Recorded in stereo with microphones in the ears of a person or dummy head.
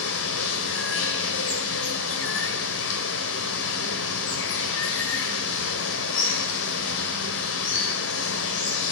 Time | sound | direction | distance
0.0 | running water | 65° left (ahead or behind) | 2 m